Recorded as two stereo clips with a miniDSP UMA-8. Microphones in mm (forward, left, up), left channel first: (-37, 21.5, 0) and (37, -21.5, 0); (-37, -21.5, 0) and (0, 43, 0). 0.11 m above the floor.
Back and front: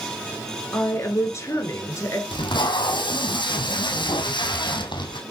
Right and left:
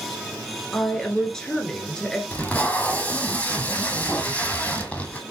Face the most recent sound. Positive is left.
turn(degrees=170)